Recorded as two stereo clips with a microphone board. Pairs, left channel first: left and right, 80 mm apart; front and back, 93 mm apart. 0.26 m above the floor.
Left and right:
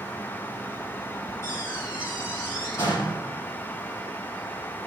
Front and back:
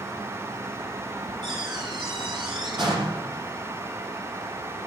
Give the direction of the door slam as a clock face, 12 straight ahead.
7 o'clock.